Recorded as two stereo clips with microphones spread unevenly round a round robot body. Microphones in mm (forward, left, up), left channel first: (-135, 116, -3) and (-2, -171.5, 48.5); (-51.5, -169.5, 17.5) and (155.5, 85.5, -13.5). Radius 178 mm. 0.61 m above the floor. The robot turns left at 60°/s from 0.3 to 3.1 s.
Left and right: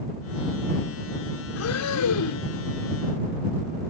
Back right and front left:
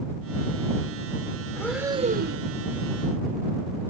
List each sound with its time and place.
1.6 s breathing: 150° left; by 2.5 s 90° left